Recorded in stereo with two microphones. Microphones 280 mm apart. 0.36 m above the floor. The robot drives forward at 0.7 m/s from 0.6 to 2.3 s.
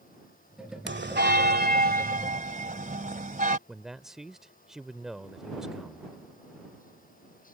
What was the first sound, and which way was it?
A bell, 40° right (ahead or behind).